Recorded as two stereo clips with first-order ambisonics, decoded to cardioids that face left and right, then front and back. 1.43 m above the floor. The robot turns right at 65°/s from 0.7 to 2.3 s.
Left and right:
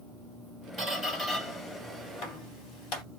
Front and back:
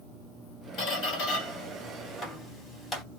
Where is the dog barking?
I don't hear a dog barking.